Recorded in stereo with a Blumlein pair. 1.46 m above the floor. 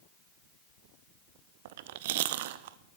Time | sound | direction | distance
1.6 | chewing | 50° right | 0.5 m